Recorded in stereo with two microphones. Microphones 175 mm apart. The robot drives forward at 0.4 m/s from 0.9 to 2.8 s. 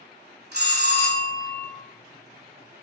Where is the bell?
80° right, 1.1 m; by 1.7 s 65° right (ahead or behind), 1.2 m.